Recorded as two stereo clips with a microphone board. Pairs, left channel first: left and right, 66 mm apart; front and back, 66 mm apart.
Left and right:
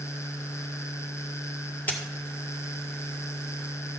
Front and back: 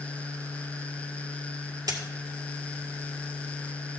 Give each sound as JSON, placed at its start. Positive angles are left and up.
{"t": 1.9, "sound": "a dropped coin", "azimuth_deg": 155, "distance_m": 1.8}